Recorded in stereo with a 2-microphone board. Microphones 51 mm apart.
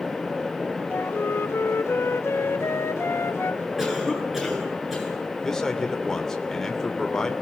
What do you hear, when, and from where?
0.9 s a flute: 55° left (ahead or behind), 1.2 m
3.8 s a cough: 5° right (ahead or behind), 9.5 m
5.4 s a man speaking: 10° left (ahead or behind), 2.5 m